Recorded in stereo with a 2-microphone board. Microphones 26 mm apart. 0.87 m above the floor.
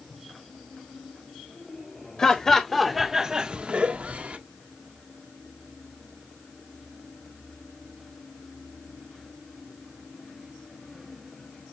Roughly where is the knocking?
No knocking in this recording.